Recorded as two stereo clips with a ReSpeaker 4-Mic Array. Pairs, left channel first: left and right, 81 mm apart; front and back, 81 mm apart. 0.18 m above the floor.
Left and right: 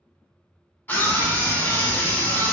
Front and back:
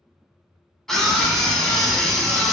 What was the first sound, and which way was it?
A scream, 75° left.